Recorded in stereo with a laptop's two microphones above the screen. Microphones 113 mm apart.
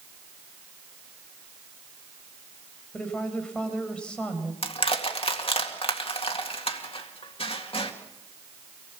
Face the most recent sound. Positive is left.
turn(degrees=55)  # may be behind; listen again after turning